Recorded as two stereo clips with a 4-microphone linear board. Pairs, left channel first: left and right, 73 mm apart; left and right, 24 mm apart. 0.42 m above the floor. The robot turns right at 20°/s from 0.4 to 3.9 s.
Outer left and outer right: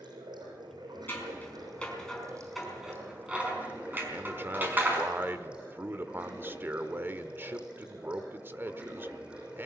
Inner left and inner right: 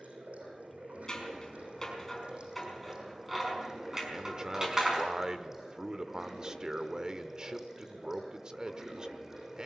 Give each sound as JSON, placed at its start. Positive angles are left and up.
{"t": 0.0, "sound": "running water", "azimuth_deg": -85, "distance_m": 6.5}
{"t": 1.1, "sound": "scissors", "side_deg": 30, "distance_m": 5.0}
{"t": 4.1, "sound": "a man speaking", "side_deg": -30, "distance_m": 1.1}